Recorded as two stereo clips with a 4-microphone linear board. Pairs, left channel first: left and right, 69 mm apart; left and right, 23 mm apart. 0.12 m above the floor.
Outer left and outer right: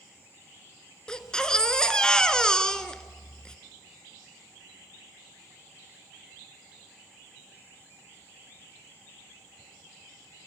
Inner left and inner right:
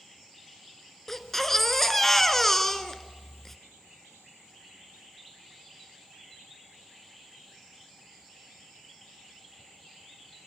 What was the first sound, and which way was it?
A baby crying, 10° left (ahead or behind).